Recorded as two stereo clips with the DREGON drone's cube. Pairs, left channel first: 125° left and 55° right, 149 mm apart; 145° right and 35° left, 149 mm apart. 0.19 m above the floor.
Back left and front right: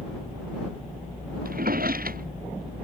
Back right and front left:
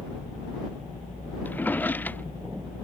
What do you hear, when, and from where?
1.4 s a drawer: 65° right